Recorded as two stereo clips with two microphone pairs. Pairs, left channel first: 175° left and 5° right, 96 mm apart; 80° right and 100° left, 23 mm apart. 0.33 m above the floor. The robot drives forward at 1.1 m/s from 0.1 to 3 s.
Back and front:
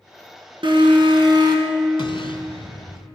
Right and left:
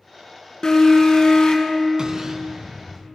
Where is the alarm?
20° right, 2.5 m; by 1.8 s 40° right, 1.5 m.